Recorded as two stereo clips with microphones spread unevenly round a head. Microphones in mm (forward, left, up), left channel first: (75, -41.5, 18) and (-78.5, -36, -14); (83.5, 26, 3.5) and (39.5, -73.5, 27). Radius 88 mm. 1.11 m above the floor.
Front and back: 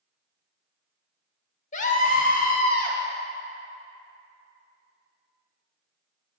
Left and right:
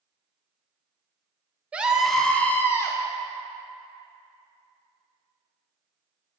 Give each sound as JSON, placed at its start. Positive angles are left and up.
{"t": 1.7, "sound": "a scream", "azimuth_deg": -25, "distance_m": 0.9}